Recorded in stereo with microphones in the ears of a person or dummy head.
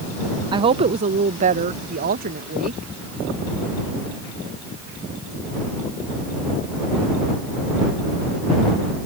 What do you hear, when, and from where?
0.5 s a woman speaking: 30° right (ahead or behind); by 2.9 s 55° right (ahead or behind)